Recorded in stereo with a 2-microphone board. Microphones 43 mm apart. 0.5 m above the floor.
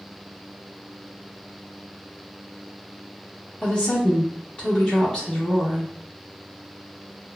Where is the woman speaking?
25° left (ahead or behind), 1.0 m.